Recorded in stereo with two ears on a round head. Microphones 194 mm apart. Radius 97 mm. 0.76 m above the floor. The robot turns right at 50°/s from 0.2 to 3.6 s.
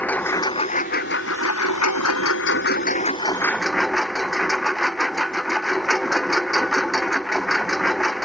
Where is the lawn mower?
10° left; by 8.2 s straight behind.